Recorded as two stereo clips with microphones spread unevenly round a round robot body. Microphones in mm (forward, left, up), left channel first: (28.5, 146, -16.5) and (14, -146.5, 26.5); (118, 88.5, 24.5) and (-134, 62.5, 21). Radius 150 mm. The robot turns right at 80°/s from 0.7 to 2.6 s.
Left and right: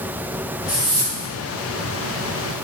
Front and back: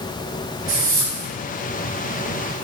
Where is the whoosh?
175° left, 4 m; by 1.3 s 135° right, 4 m.